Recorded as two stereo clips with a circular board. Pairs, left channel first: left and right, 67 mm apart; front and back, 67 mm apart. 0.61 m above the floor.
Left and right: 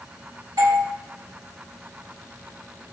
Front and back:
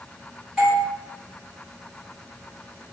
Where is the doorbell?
90° right, 3 m.